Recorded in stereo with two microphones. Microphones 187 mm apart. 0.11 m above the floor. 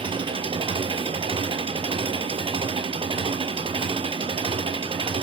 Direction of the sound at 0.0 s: 30° right (ahead or behind).